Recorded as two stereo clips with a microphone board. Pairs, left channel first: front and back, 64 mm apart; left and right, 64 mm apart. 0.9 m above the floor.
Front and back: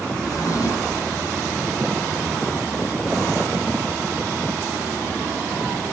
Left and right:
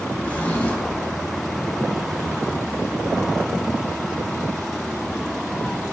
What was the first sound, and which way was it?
A drawer, 20° left.